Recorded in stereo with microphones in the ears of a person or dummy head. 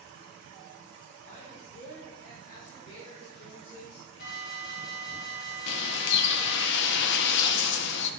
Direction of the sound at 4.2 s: 75° left (ahead or behind).